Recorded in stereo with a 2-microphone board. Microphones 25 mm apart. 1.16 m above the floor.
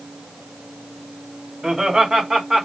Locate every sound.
1.6 s laughter: 25° right (ahead or behind), 3.5 m; by 2.7 s 30° right (ahead or behind), 3 m